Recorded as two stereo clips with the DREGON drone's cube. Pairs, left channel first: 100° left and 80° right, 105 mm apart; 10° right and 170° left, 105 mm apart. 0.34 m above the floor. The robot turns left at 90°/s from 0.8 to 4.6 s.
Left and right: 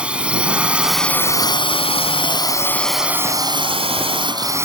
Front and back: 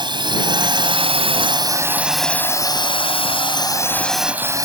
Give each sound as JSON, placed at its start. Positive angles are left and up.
{"t": 0.0, "sound": "a drone", "azimuth_deg": -155}